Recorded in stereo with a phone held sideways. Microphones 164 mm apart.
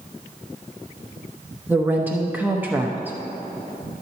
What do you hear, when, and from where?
1.7 s a woman speaking: 10° right (ahead or behind), 0.8 m